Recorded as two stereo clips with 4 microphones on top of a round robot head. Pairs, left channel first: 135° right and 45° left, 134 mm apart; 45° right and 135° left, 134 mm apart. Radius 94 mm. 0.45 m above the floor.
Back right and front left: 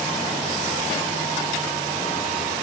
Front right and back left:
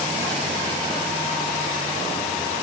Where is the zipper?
I don't hear a zipper.